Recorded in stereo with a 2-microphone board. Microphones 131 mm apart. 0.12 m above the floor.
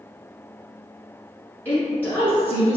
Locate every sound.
1.6 s a woman speaking: 10° left (ahead or behind), 1.3 m